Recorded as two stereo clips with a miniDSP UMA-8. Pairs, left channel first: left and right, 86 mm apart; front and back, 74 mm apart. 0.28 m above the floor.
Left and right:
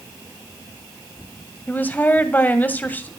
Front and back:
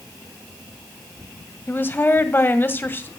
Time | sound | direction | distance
1.7 | a woman speaking | 35° left | 1.8 m